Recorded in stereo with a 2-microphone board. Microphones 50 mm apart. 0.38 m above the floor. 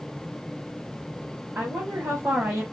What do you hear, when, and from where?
1.6 s a woman speaking: 60° right (ahead or behind), 1.9 m